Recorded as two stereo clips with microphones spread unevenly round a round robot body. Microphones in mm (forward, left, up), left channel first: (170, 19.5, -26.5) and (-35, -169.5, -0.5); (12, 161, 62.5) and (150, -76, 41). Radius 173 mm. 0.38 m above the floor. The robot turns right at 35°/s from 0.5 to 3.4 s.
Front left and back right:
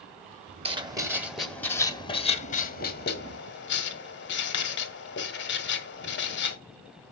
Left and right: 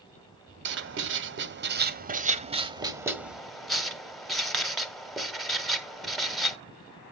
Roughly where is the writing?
Right.